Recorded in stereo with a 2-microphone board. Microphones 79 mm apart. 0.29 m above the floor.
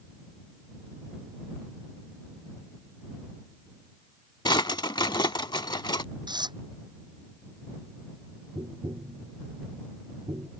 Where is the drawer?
80° left.